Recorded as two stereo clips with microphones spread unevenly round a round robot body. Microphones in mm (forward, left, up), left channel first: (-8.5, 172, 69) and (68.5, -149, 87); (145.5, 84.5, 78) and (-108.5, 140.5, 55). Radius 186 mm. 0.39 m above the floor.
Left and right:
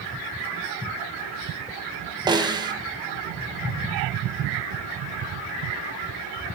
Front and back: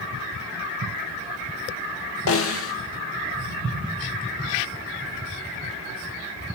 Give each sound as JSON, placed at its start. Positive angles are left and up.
{"t": 2.3, "sound": "a snare drum", "azimuth_deg": 0, "distance_m": 1.9}